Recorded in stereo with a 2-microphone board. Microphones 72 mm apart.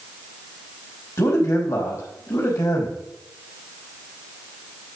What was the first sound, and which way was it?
A man speaking, 50° left (ahead or behind).